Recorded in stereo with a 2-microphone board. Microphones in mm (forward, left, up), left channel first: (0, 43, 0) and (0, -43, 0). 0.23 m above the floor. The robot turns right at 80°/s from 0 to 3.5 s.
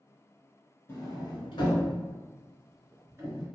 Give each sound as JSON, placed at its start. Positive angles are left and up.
{"t": 0.9, "sound": "a sliding door", "side_deg": 30, "distance_m": 1.0}